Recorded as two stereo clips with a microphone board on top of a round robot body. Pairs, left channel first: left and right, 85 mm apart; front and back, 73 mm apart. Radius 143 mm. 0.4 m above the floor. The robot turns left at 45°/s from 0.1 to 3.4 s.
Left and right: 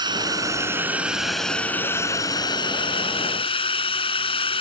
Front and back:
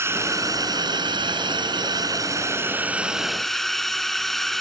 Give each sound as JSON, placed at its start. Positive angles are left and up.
{"t": 0.0, "sound": "a drone", "azimuth_deg": -125}